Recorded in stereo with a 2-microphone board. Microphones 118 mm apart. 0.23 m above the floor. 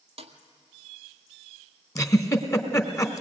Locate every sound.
0.2 s a snare drum: 50° right (ahead or behind), 1.7 m
1.9 s a giggle: 25° left (ahead or behind), 1.4 m